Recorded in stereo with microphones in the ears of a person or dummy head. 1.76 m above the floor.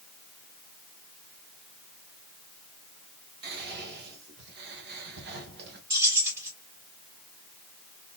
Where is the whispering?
60° right (ahead or behind), 1.3 m.